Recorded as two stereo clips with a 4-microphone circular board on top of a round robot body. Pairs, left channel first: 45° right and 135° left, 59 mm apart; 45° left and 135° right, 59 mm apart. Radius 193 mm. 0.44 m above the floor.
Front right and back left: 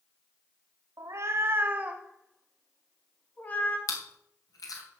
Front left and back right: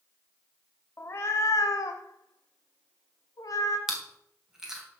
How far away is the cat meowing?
About 1.0 m.